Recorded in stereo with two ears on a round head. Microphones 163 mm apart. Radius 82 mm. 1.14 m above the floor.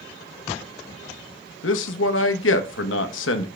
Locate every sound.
1.6 s a man speaking: 85° left, 0.9 m